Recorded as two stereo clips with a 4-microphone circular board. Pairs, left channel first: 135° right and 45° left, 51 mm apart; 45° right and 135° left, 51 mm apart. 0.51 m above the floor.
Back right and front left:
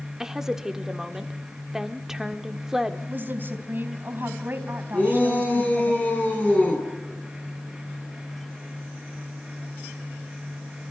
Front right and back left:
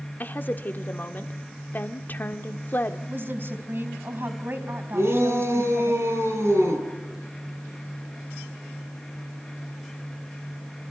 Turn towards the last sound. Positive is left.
turn(degrees=165)